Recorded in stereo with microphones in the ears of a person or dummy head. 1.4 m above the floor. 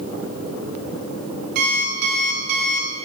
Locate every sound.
1.6 s an alarm clock: 50° right (ahead or behind), 1.4 m